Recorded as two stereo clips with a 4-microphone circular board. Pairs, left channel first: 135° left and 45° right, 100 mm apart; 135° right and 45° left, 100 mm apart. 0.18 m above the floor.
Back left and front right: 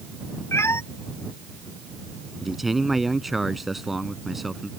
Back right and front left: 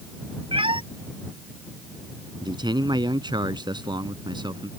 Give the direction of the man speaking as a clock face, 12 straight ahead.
11 o'clock.